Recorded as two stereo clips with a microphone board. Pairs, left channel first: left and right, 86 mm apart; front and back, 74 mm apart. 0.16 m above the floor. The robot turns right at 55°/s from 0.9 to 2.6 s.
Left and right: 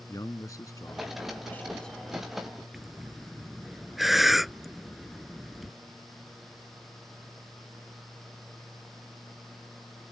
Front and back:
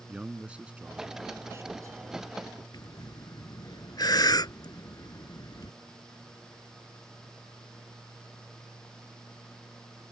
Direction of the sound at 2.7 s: Straight ahead.